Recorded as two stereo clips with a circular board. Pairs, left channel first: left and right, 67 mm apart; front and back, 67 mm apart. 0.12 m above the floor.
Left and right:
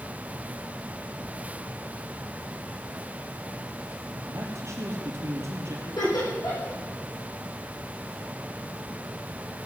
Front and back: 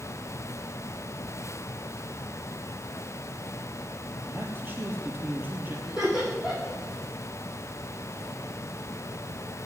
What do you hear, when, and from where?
4.3 s a man speaking: 125° right, 3 m
5.9 s laughter: 100° left, 7.5 m